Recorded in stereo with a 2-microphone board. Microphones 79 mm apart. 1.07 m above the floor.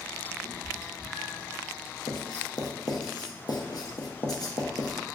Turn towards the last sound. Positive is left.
turn(degrees=55)  # may be behind; listen again after turning